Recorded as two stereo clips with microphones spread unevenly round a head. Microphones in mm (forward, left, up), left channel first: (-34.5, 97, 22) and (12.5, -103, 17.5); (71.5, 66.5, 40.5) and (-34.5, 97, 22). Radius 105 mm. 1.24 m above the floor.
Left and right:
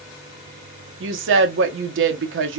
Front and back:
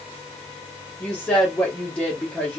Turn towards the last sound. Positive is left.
turn(degrees=-100)